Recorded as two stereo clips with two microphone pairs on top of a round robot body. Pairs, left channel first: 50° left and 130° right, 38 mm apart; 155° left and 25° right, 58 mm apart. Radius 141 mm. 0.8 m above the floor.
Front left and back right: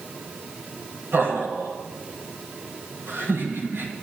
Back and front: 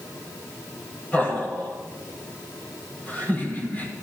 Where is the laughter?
145° right, 5 m.